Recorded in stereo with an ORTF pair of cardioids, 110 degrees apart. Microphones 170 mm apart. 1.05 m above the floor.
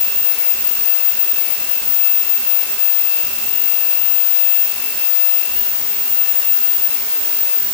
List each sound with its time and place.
Only background noise.